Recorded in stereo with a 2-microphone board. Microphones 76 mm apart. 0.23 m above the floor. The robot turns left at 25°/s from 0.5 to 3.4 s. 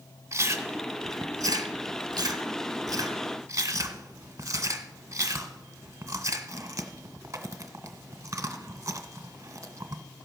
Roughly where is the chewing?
Right.